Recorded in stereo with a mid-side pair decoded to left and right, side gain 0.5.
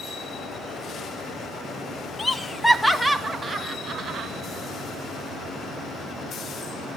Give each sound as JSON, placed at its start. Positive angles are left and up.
{"t": 2.2, "sound": "laughter", "azimuth_deg": 30, "distance_m": 1.7}